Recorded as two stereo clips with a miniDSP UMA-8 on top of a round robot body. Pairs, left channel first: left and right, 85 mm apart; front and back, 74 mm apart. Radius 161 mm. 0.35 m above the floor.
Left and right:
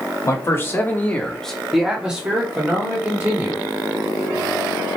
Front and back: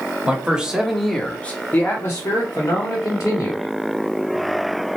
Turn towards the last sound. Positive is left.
turn(degrees=-30)